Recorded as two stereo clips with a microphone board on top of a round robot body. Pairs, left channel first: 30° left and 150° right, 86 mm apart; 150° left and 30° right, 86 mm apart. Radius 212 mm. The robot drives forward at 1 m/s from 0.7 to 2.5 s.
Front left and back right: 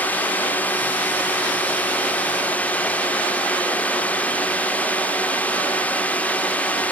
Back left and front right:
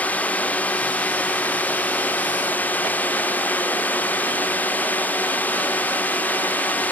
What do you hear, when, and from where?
0.0 s a drone: 90° left